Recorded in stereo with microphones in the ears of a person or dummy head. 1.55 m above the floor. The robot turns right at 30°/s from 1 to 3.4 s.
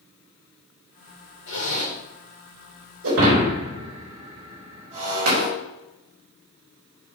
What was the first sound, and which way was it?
A zipper, 70° left (ahead or behind).